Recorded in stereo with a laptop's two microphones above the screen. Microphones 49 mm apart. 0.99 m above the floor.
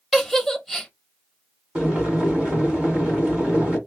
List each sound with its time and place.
0.1 s a giggle: centre (ahead or behind), 1.1 m
1.8 s boiling: 20° right (ahead or behind), 1.7 m